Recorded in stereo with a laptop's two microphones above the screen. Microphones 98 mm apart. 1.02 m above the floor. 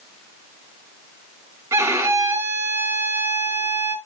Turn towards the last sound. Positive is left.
turn(degrees=-25)  # may be behind; listen again after turning